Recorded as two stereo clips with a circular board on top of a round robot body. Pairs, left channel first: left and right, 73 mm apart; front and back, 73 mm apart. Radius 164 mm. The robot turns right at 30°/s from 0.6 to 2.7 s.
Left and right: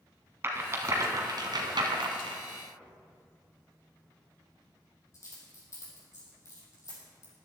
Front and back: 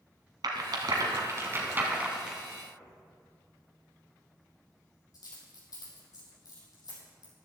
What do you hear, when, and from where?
0.4 s a rattle: 150° right, 1.2 m; by 2.4 s 95° right, 1.2 m
2.8 s a dropped coin: 40° left, 4 m